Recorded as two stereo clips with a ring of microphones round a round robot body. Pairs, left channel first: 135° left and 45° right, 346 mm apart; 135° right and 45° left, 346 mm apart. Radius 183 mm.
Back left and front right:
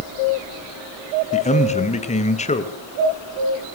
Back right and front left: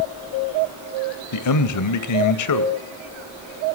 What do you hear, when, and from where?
1.3 s a man speaking: 155° right, 2 m